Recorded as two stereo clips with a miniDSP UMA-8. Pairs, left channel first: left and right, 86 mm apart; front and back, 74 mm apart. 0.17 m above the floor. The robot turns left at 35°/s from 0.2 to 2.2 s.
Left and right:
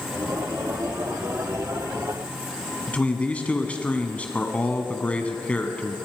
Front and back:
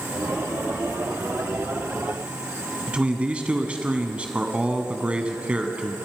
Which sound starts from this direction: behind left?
A man speaking, at 2.9 s.